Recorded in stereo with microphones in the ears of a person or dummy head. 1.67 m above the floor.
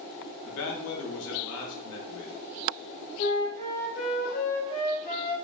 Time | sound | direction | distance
0.4 | a man speaking | 75° left (ahead or behind) | 0.7 m
3.2 | a flute | 50° left (ahead or behind) | 1.0 m